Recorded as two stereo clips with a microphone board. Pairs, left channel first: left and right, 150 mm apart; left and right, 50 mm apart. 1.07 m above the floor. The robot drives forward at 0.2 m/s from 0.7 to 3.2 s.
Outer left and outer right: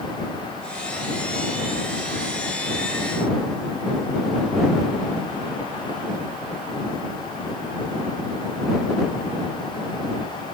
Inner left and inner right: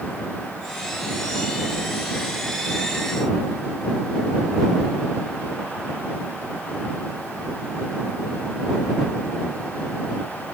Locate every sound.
Only background noise.